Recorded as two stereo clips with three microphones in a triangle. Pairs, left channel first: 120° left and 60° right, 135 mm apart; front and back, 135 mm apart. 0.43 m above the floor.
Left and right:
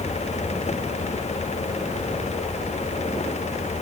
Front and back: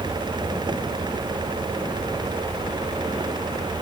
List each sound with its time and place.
Only background noise.